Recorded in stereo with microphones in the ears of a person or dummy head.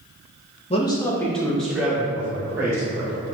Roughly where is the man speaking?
Left.